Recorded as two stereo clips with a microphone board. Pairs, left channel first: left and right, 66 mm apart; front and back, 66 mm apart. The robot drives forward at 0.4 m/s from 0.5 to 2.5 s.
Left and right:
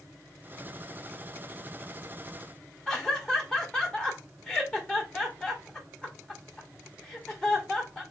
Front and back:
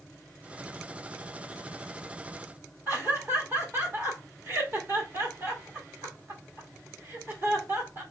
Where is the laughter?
160° left, 1.4 m.